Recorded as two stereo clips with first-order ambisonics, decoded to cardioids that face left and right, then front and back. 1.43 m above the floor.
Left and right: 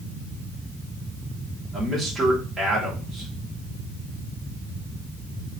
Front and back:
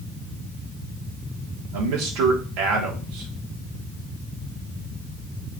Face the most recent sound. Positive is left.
turn(degrees=-165)